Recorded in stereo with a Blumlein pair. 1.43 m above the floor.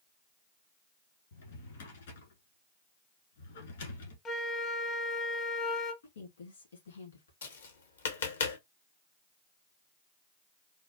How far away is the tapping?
About 1.0 m.